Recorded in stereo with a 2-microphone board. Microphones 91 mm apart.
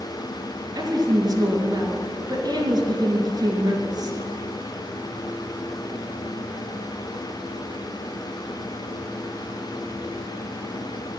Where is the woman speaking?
45° right (ahead or behind), 2 m.